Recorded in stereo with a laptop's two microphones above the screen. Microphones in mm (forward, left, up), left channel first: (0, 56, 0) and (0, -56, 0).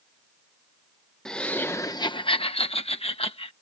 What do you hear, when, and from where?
1.2 s laughter: 5° left (ahead or behind); by 3.5 s 60° left (ahead or behind)